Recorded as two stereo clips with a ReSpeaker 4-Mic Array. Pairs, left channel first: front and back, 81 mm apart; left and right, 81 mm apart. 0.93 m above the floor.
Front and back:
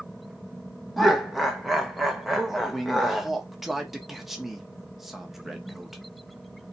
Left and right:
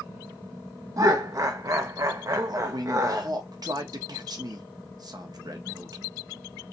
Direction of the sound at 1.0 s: 90° right.